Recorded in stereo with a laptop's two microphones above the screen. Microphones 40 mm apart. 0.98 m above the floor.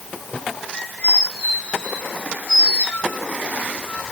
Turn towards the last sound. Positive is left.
turn(degrees=30)  # may be behind; listen again after turning